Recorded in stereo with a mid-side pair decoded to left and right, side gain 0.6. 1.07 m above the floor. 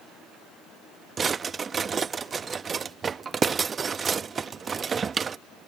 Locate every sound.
1.2 s a drawer: 30° right